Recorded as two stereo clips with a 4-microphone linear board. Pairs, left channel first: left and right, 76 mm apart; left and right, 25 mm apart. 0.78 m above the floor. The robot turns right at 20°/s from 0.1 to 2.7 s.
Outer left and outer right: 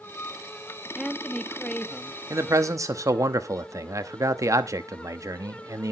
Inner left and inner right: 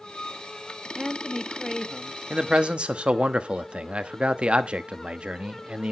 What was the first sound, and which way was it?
A woman speaking, centre (ahead or behind).